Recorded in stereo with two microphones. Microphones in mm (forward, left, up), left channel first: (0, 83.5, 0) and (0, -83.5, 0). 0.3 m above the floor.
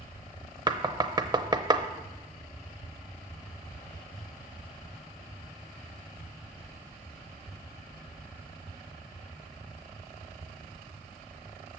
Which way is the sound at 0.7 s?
25° right (ahead or behind).